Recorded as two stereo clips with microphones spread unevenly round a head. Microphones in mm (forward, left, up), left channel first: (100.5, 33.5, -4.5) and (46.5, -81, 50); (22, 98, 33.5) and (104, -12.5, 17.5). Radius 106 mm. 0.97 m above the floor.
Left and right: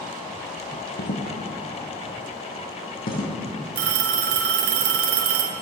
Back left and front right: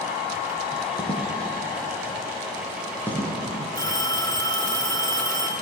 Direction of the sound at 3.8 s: 160° right.